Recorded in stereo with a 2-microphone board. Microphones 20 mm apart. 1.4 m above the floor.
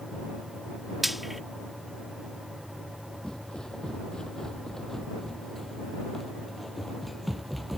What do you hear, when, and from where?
1.0 s frying: centre (ahead or behind)
3.2 s footsteps: 35° left (ahead or behind); by 7.8 s 5° right (ahead or behind)